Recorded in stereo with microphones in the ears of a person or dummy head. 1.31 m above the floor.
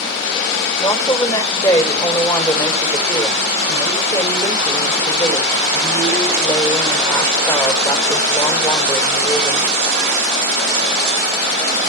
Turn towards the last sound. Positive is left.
turn(degrees=10)  # may be behind; listen again after turning